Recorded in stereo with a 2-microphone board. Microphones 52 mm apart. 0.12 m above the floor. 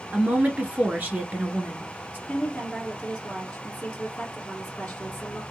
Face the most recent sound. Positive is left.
turn(degrees=20)  # may be behind; listen again after turning